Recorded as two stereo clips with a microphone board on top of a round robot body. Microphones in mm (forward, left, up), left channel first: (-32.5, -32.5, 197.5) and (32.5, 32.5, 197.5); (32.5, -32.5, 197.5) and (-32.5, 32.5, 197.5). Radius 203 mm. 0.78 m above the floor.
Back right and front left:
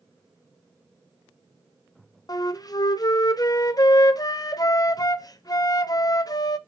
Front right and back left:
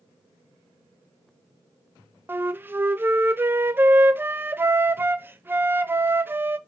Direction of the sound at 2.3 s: 165° right.